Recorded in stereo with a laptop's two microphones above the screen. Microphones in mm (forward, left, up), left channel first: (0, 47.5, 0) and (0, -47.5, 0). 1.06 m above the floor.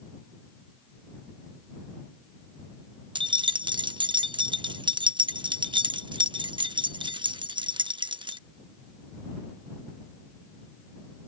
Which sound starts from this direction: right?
Keys jangling, at 3.1 s.